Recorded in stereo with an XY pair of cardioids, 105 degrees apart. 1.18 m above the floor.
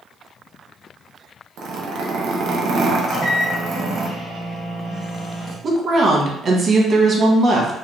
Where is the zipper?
65° right, 0.7 m.